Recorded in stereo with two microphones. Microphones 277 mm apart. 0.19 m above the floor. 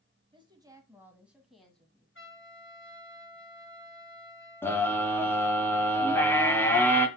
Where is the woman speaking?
20° right (ahead or behind), 1.5 m; by 2.0 s 5° left (ahead or behind), 1.7 m.